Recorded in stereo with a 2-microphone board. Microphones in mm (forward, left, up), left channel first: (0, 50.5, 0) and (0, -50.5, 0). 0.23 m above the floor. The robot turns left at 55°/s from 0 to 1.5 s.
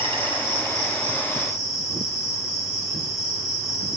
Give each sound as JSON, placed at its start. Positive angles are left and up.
{"t": 0.0, "sound": "an insect", "azimuth_deg": -90, "distance_m": 3.5}